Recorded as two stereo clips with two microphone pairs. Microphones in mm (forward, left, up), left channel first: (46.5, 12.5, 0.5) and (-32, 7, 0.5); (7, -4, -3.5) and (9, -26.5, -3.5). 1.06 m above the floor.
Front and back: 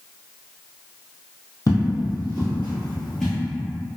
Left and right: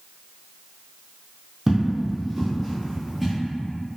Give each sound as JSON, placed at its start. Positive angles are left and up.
{"t": 1.7, "sound": "footsteps", "azimuth_deg": -20, "distance_m": 1.5}